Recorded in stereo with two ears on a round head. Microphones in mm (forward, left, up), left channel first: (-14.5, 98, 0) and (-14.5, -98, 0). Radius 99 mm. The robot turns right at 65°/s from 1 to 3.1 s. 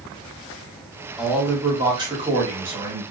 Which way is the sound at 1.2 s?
Centre (ahead or behind).